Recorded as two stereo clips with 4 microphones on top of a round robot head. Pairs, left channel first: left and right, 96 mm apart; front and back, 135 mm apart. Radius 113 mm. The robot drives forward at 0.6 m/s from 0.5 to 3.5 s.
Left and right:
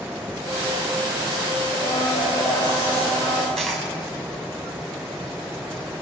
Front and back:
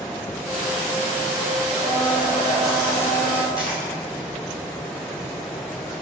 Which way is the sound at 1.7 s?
130° left.